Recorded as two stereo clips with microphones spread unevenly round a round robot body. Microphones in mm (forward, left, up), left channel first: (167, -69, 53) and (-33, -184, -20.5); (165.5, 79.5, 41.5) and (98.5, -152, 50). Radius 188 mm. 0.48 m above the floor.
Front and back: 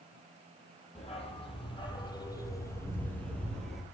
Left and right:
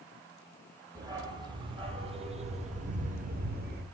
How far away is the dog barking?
About 6 m.